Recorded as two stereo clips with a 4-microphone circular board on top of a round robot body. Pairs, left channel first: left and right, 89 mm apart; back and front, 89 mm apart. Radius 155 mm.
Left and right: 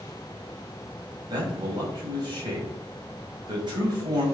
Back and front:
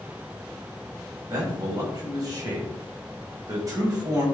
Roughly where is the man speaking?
Ahead right.